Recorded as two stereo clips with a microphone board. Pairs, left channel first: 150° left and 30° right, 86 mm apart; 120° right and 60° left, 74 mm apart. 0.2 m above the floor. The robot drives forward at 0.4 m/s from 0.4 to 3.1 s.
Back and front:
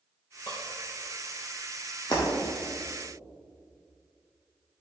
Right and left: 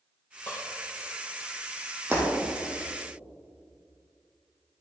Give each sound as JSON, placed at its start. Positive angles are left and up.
{"t": 0.5, "sound": "dishes clattering", "azimuth_deg": 175, "distance_m": 3.5}
{"t": 2.1, "sound": "breaking glass", "azimuth_deg": 115, "distance_m": 3.5}